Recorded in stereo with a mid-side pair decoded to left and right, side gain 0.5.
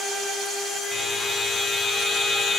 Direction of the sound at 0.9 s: 10° left.